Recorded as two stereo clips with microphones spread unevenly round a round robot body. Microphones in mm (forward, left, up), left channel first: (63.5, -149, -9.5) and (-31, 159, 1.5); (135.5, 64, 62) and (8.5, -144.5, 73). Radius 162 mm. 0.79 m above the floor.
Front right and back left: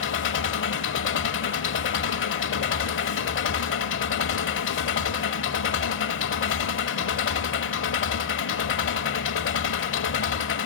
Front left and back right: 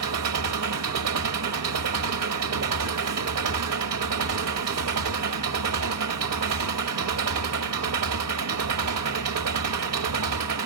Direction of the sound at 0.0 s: 125° right.